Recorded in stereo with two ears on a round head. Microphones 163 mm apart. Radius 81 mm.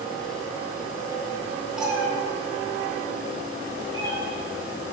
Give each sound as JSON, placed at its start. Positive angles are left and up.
{"t": 1.8, "sound": "a cat meowing", "side_deg": -5, "distance_m": 1.3}